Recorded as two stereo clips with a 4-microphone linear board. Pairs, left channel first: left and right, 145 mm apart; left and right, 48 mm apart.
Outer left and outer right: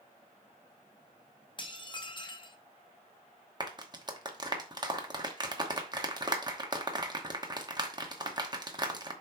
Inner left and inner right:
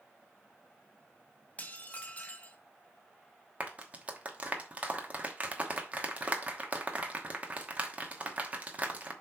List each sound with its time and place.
1.6 s dishes clattering: 35° left (ahead or behind), 0.8 m
3.6 s a clap: 30° right (ahead or behind), 1.0 m